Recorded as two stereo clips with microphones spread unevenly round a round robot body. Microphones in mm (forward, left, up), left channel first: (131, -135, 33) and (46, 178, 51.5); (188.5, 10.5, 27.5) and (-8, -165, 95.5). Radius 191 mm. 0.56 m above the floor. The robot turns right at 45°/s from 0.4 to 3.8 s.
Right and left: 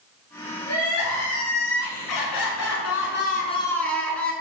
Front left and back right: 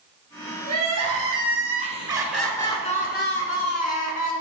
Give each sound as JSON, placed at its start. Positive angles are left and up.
{"t": 0.7, "sound": "crying", "azimuth_deg": -130, "distance_m": 1.8}